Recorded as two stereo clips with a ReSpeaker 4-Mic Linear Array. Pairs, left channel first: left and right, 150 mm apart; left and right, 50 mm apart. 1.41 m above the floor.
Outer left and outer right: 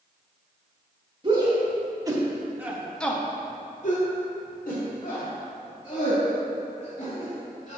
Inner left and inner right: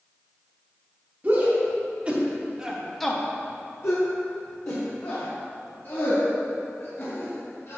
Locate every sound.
1.2 s a shout: 35° right (ahead or behind), 2 m; by 7.8 s 55° left (ahead or behind), 4 m